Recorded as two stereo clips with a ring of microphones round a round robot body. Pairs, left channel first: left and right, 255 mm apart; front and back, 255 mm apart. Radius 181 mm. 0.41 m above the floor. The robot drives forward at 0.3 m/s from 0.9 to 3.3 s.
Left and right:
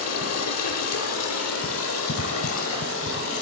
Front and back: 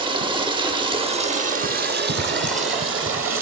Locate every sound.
0.0 s running water: 110° left, 0.8 m; by 3.4 s 145° left, 1.2 m